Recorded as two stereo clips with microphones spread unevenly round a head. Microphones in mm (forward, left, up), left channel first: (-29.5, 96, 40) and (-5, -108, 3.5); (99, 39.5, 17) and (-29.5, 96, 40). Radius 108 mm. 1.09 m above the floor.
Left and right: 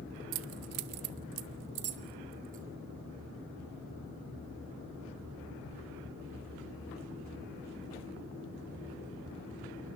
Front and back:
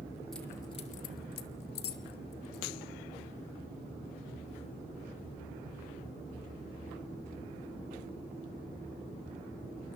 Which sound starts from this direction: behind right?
Keys jangling, at 0.3 s.